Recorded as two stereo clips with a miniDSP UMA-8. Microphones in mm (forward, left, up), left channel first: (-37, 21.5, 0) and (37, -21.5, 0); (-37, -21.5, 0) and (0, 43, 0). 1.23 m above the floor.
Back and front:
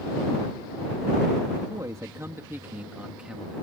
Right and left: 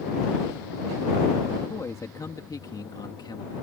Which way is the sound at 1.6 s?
75° right.